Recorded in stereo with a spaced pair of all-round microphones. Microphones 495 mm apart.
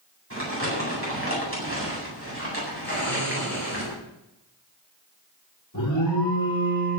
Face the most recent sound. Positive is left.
turn(degrees=40)  # may be behind; listen again after turning